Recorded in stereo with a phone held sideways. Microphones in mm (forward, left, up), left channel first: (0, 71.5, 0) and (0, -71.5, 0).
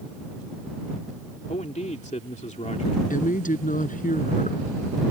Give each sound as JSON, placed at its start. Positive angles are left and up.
{"t": 1.5, "sound": "a man speaking", "side_deg": 55}
{"t": 3.1, "sound": "a woman speaking", "side_deg": 65}